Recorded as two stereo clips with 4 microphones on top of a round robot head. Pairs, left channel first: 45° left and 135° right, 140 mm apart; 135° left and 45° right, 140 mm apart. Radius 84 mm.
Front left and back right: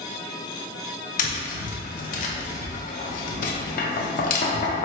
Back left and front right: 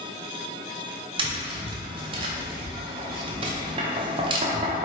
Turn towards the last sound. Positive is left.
turn(degrees=10)